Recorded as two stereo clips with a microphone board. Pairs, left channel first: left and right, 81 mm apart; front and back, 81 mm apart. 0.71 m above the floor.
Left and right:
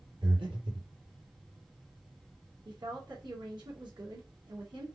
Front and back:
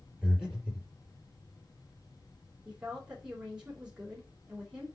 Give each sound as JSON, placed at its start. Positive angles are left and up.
{"t": 0.2, "sound": "breathing", "azimuth_deg": -105, "distance_m": 4.0}
{"t": 2.6, "sound": "a woman speaking", "azimuth_deg": -100, "distance_m": 3.5}